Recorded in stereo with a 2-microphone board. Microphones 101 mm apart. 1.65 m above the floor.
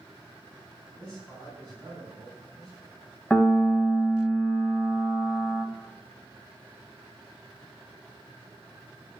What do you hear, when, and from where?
0.9 s a man speaking: 10° left (ahead or behind), 9.5 m; by 3.0 s 5° left (ahead or behind), 8.5 m
3.3 s a piano: 10° left (ahead or behind), 1.5 m